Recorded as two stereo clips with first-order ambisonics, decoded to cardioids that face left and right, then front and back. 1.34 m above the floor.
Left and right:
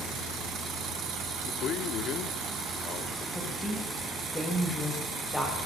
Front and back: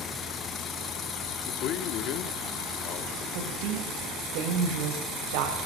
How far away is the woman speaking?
About 5.5 m.